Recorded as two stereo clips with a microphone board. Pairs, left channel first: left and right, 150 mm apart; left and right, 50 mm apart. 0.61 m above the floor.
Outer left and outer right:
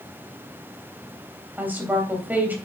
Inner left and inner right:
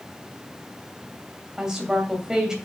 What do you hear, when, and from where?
1.6 s a woman speaking: 10° right (ahead or behind), 3 m